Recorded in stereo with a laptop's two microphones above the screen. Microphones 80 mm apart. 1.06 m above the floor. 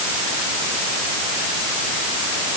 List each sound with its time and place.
Only background noise.